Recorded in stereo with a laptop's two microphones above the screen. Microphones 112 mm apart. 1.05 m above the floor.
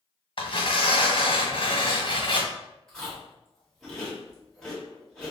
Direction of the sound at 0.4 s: 50° left (ahead or behind).